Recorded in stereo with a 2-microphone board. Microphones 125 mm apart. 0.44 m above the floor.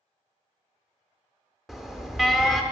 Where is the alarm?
Centre (ahead or behind), 0.6 m.